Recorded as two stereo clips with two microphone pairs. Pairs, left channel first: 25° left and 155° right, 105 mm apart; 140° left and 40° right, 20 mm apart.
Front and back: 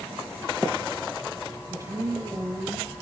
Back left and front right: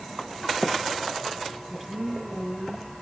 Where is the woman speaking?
105° right, 2.5 m.